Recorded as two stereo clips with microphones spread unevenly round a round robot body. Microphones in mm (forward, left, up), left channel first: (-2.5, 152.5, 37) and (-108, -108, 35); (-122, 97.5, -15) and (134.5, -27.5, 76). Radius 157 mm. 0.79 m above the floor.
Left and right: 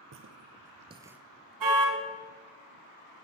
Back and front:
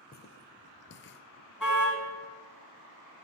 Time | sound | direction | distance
0.1 | footsteps | 135° right | 1.1 m
1.6 | a car horn | 115° right | 4 m